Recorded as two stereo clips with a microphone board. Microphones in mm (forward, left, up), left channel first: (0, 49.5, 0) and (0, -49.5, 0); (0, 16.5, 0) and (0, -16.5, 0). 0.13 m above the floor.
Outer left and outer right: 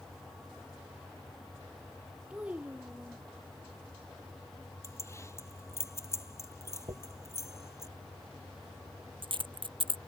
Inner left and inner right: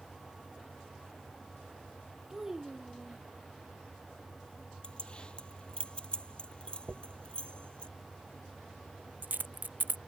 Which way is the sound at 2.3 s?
15° right (ahead or behind).